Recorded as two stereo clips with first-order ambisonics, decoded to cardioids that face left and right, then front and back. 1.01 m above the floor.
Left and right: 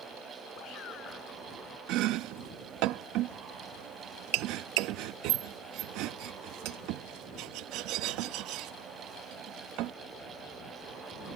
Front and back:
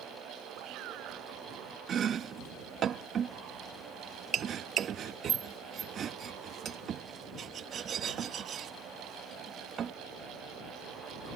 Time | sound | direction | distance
0.6 | a shout | 145° left | ?
1.9 | chopping | 120° right | ?